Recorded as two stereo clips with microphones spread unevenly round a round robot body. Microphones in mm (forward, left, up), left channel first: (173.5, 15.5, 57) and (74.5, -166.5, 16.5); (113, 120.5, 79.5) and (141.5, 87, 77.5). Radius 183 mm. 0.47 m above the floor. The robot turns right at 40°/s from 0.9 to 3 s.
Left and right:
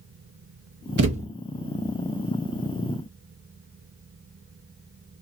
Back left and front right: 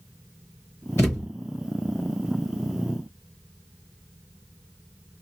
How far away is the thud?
About 0.5 m.